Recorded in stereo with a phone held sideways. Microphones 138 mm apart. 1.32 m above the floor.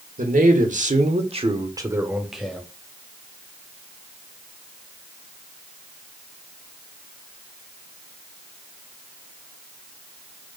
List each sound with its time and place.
0.2 s a man speaking: 70° right (ahead or behind), 1.1 m; by 2.7 s 10° left (ahead or behind), 0.8 m